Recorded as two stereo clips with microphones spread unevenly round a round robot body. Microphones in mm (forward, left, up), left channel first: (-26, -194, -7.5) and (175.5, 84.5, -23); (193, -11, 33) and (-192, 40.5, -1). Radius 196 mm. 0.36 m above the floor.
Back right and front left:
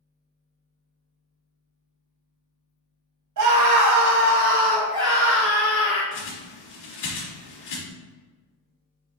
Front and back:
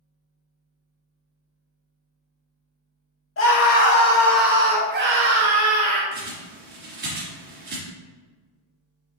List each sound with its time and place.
3.4 s a scream: 45° left, 2.5 m; by 6.0 s 160° left, 2.5 m
6.1 s a bird: 120° right, 2.5 m